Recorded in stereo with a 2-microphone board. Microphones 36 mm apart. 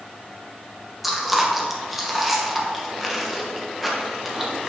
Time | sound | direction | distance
1.0 | chewing | 5° right (ahead or behind) | 1.1 m